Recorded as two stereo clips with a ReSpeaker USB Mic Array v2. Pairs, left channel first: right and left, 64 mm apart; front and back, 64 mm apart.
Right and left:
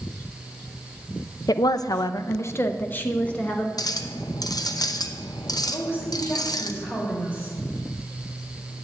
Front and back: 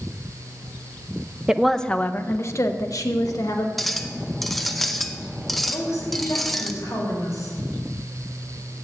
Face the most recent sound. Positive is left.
turn(degrees=-40)